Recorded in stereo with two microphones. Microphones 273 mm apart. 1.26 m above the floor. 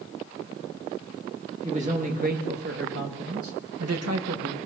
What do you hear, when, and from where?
1.6 s a man speaking: 25° right (ahead or behind), 2 m; by 4.6 s 70° right (ahead or behind), 1.6 m